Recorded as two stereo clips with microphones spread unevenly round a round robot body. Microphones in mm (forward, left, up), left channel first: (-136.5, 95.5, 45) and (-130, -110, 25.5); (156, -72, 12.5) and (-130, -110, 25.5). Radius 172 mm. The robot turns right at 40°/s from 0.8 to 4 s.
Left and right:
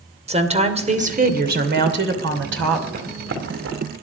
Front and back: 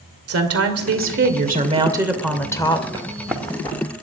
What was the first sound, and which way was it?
A woman speaking, 140° right.